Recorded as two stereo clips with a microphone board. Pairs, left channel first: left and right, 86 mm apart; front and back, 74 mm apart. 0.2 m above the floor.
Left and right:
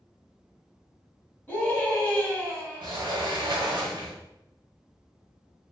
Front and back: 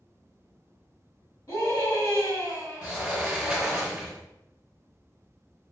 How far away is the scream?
About 1.6 m.